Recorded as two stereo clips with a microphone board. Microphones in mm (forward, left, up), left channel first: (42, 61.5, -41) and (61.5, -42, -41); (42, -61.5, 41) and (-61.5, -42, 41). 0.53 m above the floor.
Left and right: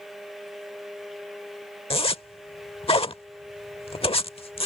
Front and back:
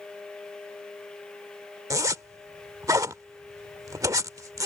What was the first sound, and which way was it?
A zipper, 115° left.